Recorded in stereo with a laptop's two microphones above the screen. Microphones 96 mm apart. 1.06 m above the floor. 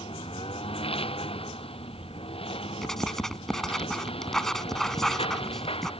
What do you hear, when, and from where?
0.0 s a lawn mower: 85° left
2.8 s writing: 5° left (ahead or behind)